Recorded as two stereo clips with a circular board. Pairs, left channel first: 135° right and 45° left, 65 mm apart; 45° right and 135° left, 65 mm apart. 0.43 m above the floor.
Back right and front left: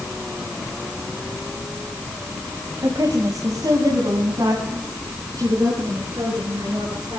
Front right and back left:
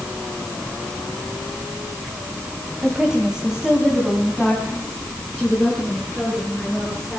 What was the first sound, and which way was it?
A woman speaking, 60° left.